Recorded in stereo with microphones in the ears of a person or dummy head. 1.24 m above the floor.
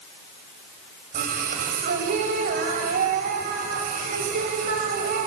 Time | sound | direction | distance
1.1 | singing | 50° right (ahead or behind) | 2.5 m